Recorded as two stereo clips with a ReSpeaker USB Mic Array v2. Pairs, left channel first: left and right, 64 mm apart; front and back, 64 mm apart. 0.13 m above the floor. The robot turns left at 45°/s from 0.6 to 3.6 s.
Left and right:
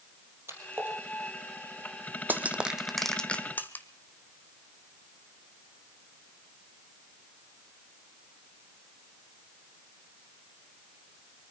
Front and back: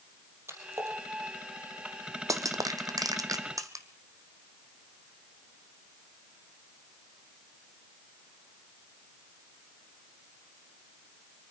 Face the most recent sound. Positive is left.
turn(degrees=150)